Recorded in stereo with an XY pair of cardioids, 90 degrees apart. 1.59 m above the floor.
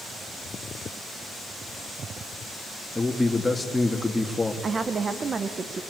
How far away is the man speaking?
About 3 m.